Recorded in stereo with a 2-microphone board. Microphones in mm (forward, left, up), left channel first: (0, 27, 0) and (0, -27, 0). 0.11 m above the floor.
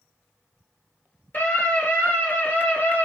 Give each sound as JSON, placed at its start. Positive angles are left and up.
{"t": 1.3, "sound": "a scream", "side_deg": 35, "distance_m": 2.5}